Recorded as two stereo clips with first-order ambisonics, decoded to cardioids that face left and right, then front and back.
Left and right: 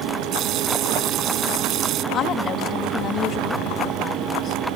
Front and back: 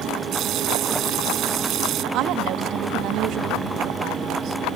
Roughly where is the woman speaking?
Behind left.